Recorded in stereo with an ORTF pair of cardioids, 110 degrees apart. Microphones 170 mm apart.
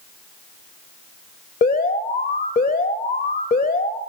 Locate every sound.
1.6 s an alarm: 60° left, 2 m